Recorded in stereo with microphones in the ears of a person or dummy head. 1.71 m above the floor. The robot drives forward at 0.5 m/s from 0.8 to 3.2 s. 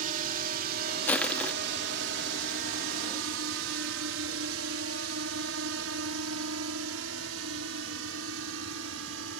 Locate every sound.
0.0 s a drone: 45° right (ahead or behind); by 9.4 s 80° right
1.1 s crushing: 10° left (ahead or behind)